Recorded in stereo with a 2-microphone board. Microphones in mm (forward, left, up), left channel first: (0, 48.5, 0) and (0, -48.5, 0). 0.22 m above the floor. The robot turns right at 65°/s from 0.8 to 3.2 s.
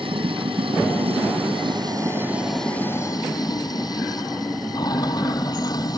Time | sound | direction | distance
0.0 | running water | 115° right | ?